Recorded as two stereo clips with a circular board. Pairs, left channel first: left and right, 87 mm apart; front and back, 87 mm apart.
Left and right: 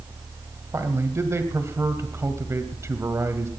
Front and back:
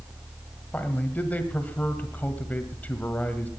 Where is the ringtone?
I don't hear a ringtone.